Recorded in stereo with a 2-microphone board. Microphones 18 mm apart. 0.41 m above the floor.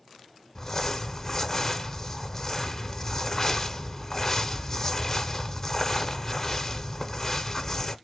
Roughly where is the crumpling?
Left.